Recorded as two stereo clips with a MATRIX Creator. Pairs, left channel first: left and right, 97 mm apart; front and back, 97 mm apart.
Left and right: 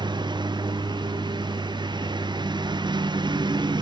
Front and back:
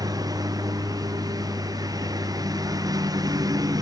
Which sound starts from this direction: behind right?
A lawn mower, at 0.0 s.